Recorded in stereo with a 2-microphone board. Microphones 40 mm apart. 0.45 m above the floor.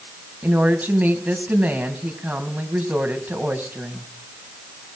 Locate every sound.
0.4 s a woman speaking: 40° right (ahead or behind), 3 m